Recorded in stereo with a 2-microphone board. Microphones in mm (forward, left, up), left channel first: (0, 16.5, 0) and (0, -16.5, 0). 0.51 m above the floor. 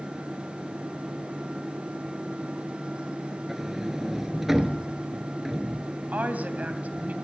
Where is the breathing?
No breathing in this recording.